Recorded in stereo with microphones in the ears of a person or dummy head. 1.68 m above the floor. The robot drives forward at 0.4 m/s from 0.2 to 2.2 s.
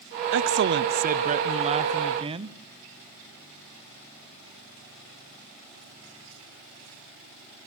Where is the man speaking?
65° right (ahead or behind), 0.6 m; by 2.6 s 25° right (ahead or behind), 1.1 m.